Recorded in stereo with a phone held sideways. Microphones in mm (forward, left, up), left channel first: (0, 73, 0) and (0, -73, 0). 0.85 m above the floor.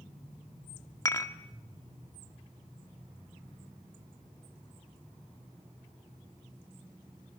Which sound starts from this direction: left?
Dishes clattering, at 1.1 s.